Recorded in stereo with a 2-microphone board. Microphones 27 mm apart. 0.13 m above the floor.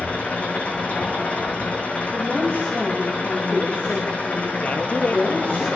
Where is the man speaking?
55° left (ahead or behind), 3.5 m.